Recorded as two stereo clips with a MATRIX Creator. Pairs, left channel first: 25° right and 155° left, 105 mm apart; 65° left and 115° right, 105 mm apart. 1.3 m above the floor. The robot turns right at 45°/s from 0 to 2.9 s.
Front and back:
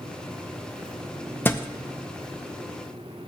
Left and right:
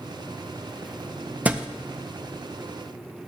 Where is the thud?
55° right, 0.6 m; by 1.7 s 45° right, 0.6 m.